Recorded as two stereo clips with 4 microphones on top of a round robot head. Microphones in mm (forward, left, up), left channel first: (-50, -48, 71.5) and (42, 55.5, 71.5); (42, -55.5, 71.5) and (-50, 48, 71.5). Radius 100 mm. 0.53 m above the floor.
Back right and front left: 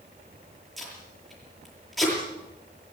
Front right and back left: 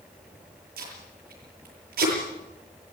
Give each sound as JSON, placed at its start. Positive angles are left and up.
{"t": 0.8, "sound": "tape being pulled", "azimuth_deg": 140, "distance_m": 8.0}